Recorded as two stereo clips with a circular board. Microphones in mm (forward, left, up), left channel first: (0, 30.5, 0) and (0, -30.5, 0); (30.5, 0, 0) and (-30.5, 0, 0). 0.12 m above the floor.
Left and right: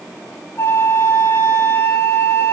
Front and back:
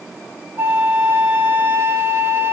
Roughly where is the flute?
Behind left.